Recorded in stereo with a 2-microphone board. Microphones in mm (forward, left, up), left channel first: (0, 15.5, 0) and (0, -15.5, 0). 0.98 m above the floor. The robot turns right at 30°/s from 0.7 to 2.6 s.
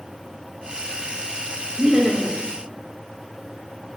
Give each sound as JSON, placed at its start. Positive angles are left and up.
{"t": 1.8, "sound": "laughter", "side_deg": -35, "distance_m": 1.2}